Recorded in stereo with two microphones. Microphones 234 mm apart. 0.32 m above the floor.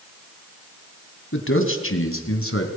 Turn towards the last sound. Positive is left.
turn(degrees=70)  # may be behind; listen again after turning